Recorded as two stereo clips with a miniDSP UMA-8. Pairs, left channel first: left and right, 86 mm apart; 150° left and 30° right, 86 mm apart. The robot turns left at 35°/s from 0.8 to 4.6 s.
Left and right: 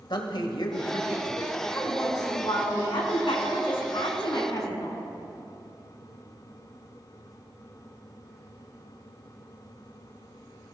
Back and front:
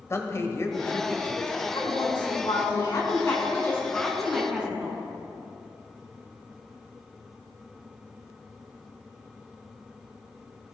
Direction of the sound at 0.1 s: 95° left.